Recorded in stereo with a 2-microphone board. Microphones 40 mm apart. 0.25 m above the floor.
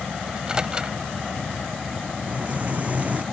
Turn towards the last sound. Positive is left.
turn(degrees=-35)  # may be behind; listen again after turning